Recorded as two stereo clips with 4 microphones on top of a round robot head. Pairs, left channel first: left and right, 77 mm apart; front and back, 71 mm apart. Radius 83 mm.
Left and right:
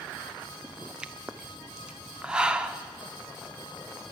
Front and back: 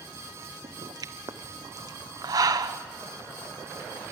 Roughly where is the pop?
Behind.